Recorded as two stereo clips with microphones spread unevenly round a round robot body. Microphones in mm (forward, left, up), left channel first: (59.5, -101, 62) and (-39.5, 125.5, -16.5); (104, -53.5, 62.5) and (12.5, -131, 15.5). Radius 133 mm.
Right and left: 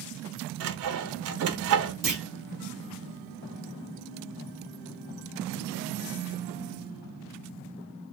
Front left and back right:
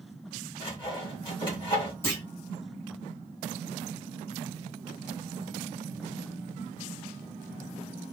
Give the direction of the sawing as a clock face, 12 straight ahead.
8 o'clock.